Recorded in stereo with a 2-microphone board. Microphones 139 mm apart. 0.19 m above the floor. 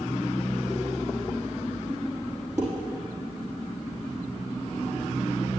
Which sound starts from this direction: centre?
Dishes clattering, at 2.6 s.